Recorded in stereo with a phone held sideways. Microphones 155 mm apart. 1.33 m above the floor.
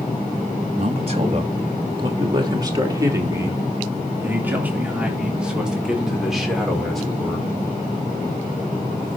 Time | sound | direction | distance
0.8 | a man speaking | 45° right (ahead or behind) | 3 m